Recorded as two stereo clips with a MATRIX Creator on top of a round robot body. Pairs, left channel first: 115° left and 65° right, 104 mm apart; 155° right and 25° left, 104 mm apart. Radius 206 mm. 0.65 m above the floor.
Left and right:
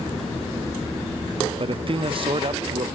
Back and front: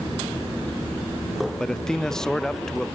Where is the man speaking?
75° right, 0.8 m.